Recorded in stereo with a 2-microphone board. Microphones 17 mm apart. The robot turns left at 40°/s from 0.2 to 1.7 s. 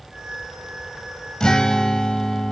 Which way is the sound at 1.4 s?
45° left (ahead or behind).